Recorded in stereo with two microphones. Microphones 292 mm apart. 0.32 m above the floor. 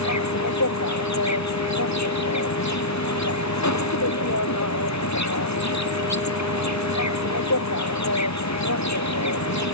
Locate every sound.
0.0 s an insect: 70° left (ahead or behind)